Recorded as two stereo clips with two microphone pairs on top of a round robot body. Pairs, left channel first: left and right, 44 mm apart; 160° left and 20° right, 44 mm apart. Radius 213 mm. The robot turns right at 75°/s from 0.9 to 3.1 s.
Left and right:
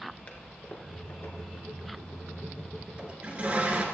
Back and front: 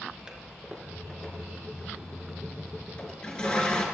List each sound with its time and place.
0.3 s a toilet flushing: 55° left, 2 m; by 3.9 s 140° right, 2 m